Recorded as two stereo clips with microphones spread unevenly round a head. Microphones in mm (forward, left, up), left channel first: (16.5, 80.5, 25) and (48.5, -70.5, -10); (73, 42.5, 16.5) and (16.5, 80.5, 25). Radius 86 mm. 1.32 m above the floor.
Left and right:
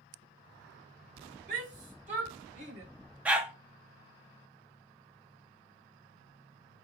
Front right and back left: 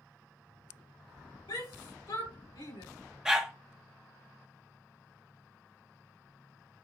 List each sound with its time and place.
1.5 s a shout: 45° right, 3.5 m; by 2.8 s 35° right, 4 m
3.2 s a dog barking: 175° left, 0.7 m